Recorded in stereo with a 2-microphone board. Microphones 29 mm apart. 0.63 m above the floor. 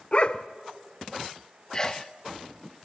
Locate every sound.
0.1 s a dog barking: 40° left (ahead or behind), 0.6 m
1.7 s a sneeze: 20° left (ahead or behind), 0.6 m